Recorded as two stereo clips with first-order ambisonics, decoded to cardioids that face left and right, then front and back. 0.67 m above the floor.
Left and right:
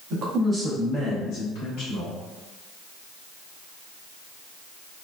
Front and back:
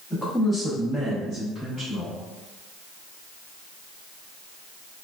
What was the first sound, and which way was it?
A man speaking, 80° right.